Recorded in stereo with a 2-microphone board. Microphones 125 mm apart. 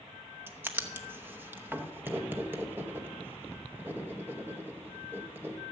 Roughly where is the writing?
Centre.